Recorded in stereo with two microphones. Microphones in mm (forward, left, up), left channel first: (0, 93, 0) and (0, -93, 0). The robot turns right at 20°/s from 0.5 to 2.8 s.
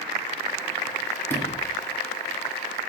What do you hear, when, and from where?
1.3 s a sliding door: 10° left (ahead or behind), 1.1 m; by 1.7 s 20° left (ahead or behind), 1.1 m